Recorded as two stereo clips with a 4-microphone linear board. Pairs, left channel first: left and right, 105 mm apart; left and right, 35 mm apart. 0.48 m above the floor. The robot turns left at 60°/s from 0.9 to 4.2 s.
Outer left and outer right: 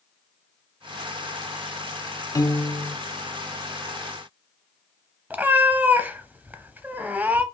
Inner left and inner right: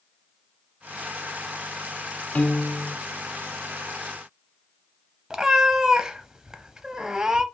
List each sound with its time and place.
2.4 s a piano: 65° left, 0.8 m; by 3.0 s 25° left, 0.8 m
5.3 s a cat meowing: 15° right (ahead or behind), 0.6 m